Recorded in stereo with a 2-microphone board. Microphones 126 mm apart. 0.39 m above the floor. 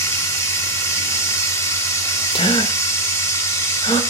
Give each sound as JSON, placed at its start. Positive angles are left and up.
{"t": 0.0, "sound": "running water", "side_deg": 20, "distance_m": 0.7}
{"t": 2.3, "sound": "a gasp", "side_deg": 45, "distance_m": 0.6}